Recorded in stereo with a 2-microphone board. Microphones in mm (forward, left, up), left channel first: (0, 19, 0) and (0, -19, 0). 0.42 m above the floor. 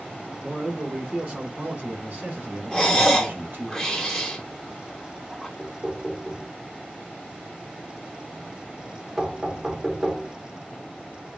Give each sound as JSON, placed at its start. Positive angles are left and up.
{"t": 0.4, "sound": "a man speaking", "side_deg": -15, "distance_m": 1.1}
{"t": 2.7, "sound": "breathing", "side_deg": 15, "distance_m": 1.2}
{"t": 5.6, "sound": "knocking", "side_deg": -15, "distance_m": 0.6}